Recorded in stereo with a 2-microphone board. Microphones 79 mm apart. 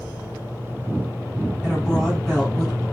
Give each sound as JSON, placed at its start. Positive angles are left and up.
{"t": 1.6, "sound": "a woman speaking", "side_deg": 5, "distance_m": 1.4}